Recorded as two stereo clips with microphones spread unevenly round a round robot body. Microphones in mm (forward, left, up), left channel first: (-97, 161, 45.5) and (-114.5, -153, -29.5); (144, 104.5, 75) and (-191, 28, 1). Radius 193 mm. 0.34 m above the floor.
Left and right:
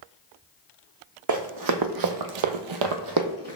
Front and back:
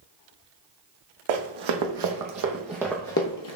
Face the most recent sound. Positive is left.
turn(degrees=-15)